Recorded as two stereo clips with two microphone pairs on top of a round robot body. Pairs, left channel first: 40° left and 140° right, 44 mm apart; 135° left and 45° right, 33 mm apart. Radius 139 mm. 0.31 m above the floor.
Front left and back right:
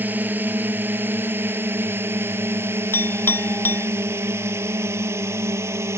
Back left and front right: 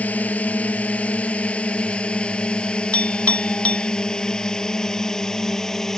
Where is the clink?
80° left.